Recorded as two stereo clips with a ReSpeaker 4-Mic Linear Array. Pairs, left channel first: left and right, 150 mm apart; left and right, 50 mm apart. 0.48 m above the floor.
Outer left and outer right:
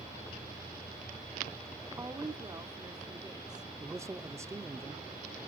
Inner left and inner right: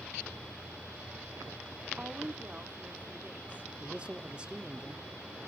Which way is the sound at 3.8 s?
20° right (ahead or behind).